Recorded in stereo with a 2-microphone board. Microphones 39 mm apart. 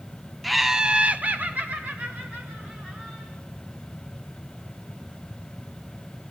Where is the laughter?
Centre (ahead or behind), 0.5 m; by 3.3 s 35° right (ahead or behind), 2 m.